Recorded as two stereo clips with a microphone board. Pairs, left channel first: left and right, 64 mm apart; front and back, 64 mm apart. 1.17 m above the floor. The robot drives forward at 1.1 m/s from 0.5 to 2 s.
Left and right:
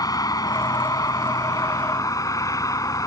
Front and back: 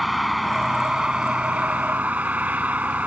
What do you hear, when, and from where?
0.0 s a vehicle: 90° left; by 3.1 s 115° left